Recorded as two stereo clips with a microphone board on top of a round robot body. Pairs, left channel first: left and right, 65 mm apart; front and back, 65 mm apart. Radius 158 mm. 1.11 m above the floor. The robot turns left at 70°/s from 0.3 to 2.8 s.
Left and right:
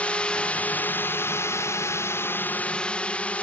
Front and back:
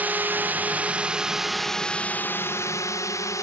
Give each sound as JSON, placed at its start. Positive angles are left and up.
{"t": 0.0, "sound": "a drone", "azimuth_deg": 140}